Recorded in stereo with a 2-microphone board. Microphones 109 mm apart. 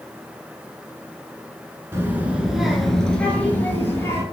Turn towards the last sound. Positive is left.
turn(degrees=25)  # may be behind; listen again after turning